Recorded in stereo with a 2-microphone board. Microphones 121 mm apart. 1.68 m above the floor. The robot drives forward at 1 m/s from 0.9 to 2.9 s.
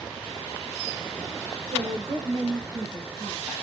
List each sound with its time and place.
1.7 s a woman speaking: 55° right (ahead or behind), 1.7 m; by 3.5 s 30° right (ahead or behind), 2.5 m